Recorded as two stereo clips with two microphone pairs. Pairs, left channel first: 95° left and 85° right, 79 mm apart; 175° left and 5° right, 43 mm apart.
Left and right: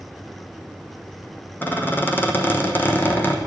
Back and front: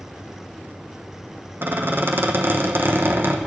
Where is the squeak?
30° left, 0.9 m.